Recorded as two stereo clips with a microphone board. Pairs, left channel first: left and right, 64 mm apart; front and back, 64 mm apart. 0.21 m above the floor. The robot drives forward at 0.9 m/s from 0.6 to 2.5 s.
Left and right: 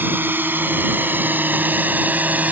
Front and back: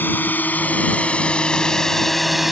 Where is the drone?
45° right; by 2.5 s 100° right.